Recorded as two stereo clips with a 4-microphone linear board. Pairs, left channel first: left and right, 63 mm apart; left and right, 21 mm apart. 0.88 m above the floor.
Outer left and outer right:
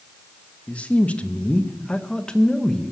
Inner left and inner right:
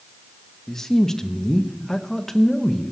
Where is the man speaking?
20° left (ahead or behind), 1.2 m; by 2.9 s 5° left (ahead or behind), 0.9 m.